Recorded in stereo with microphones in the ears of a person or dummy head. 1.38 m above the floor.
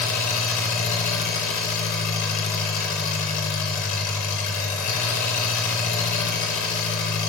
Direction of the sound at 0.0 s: 45° left (ahead or behind).